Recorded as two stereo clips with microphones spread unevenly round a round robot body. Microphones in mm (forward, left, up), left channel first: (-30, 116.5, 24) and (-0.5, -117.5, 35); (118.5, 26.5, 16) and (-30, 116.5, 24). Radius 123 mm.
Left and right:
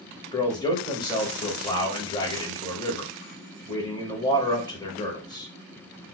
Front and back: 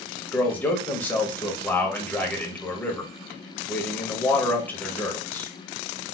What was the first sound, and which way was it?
A man speaking, 40° left.